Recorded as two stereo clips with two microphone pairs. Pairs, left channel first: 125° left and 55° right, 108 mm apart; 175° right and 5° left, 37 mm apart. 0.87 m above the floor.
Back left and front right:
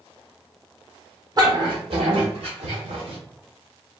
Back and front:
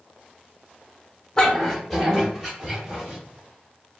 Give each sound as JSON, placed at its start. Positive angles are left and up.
{"t": 1.4, "sound": "a dog barking", "azimuth_deg": -105, "distance_m": 0.8}